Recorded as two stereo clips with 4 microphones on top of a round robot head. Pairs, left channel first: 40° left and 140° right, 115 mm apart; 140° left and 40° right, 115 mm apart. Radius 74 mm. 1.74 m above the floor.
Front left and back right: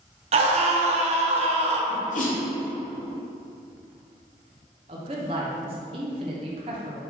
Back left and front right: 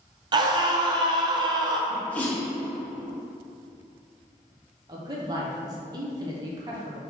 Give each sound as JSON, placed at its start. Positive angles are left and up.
{"t": 0.3, "sound": "a scream", "azimuth_deg": -100, "distance_m": 0.7}
{"t": 1.9, "sound": "a sneeze", "azimuth_deg": 60, "distance_m": 1.1}
{"t": 4.9, "sound": "a man speaking", "azimuth_deg": -95, "distance_m": 0.7}